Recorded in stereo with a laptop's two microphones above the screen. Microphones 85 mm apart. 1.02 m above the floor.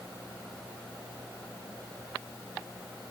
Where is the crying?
I don't hear crying.